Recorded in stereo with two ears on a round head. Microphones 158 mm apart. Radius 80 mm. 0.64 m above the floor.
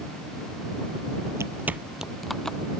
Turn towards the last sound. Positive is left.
turn(degrees=5)  # may be behind; listen again after turning